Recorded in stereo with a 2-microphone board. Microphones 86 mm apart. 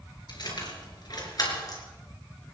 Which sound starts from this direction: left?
Keys jangling, at 0.3 s.